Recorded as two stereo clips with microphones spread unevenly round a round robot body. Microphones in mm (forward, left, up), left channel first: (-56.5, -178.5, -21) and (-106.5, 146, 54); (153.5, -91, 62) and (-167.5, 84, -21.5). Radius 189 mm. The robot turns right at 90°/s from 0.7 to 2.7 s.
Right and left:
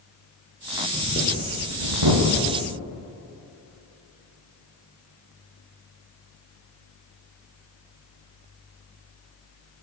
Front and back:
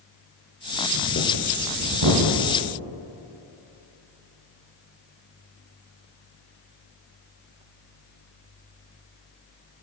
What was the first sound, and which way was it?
Breathing, 5° right.